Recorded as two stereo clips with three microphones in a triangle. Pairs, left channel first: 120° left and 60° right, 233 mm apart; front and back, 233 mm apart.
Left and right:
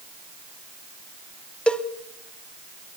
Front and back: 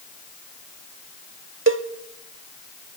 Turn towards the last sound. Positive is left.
turn(degrees=-155)